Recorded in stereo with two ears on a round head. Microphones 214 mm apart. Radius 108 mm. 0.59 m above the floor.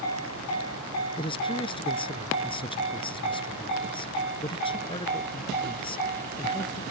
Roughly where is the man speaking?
Left.